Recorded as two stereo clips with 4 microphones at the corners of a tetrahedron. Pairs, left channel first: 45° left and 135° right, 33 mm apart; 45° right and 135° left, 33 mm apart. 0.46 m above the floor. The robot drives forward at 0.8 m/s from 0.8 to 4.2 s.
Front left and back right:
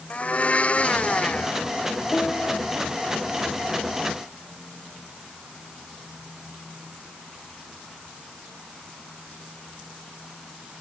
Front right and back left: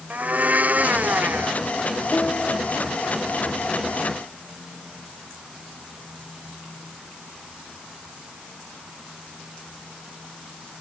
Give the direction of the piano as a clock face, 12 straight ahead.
12 o'clock.